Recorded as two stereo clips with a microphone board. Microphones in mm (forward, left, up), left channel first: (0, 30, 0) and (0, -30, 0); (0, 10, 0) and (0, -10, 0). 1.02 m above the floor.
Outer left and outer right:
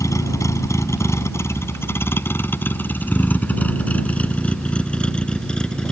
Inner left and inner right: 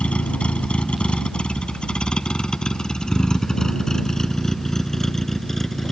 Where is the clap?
I don't hear a clap.